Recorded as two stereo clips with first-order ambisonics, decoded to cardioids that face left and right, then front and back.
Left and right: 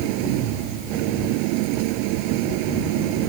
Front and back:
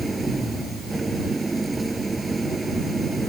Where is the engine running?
100° right.